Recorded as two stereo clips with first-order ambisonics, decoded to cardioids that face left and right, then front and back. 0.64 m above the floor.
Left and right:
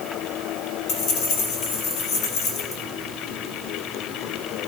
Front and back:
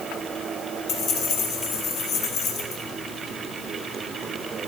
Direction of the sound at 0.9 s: 50° left.